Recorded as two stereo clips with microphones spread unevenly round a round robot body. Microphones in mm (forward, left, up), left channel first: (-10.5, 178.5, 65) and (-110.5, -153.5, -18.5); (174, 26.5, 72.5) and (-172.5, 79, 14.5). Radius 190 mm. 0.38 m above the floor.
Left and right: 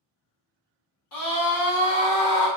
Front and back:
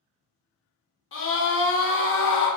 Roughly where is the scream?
Ahead left.